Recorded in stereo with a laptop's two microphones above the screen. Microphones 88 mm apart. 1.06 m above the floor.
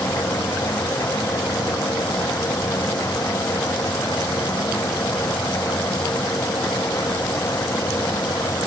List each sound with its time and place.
0.0 s a machine running: 35° left (ahead or behind)